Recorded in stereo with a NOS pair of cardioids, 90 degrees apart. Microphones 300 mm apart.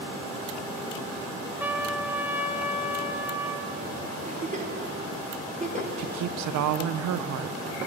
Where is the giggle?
25° right, 1.5 m.